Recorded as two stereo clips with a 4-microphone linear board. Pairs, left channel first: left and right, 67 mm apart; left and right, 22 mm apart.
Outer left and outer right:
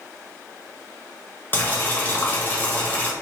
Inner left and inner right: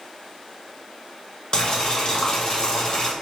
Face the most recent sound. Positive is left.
turn(degrees=30)  # may be behind; listen again after turning